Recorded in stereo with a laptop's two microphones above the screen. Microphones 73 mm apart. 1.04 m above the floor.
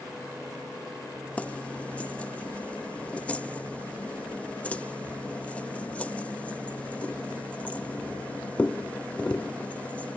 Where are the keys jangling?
15° left (ahead or behind).